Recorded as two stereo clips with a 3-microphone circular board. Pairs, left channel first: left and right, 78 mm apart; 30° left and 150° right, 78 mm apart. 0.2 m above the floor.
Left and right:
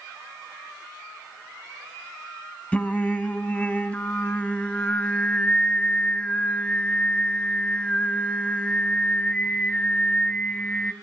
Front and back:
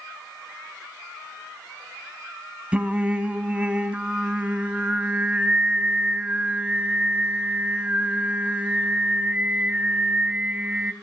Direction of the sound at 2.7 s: 150° left.